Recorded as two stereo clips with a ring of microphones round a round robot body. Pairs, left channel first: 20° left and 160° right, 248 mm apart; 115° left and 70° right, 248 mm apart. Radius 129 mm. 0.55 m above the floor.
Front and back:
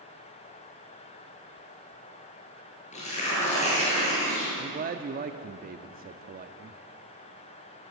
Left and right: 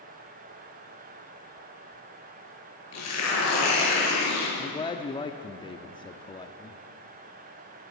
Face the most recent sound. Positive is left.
turn(degrees=175)